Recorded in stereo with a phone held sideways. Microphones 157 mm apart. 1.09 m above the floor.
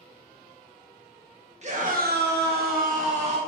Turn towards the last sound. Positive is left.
turn(degrees=-40)  # may be behind; listen again after turning